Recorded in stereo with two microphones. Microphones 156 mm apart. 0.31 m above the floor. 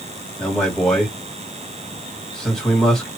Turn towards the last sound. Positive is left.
turn(degrees=5)  # may be behind; listen again after turning